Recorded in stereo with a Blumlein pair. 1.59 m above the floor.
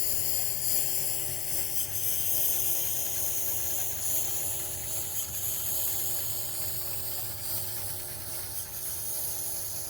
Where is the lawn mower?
40° left; by 9.9 s 10° right.